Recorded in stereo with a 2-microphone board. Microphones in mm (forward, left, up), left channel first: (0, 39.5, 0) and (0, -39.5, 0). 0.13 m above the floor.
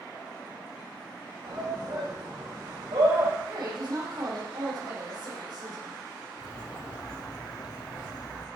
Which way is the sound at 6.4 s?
55° left (ahead or behind).